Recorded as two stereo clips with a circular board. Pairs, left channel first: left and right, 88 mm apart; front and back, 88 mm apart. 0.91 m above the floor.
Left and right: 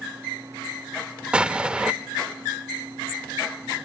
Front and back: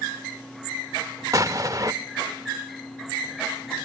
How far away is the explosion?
About 0.6 m.